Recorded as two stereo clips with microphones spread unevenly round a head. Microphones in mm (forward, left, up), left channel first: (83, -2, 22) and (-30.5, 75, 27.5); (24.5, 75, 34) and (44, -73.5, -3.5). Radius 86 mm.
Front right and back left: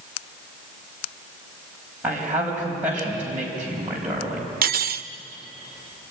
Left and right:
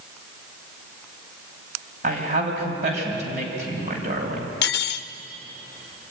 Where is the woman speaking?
135° right, 5 m.